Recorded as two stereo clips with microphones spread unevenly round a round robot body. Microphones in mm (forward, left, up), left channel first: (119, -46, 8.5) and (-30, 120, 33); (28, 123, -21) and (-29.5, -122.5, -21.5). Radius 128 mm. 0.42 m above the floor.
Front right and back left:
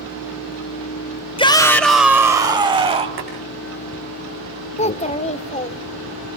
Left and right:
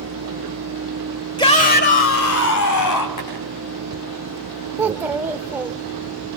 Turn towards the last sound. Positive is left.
turn(degrees=-30)